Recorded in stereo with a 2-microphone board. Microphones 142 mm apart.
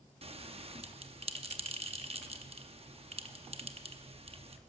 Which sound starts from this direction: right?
A bell, at 0.2 s.